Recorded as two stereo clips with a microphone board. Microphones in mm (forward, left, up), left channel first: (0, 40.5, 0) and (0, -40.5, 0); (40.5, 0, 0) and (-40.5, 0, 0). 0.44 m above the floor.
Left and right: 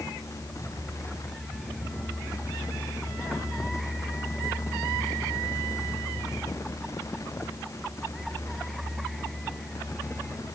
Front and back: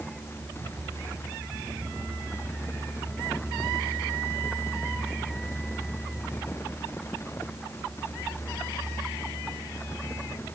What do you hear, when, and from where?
Only background noise.